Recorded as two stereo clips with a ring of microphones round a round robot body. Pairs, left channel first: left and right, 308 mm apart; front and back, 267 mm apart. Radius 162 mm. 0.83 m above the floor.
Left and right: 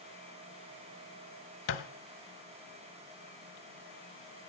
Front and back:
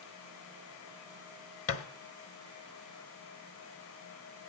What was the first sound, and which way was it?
A thud, 35° left.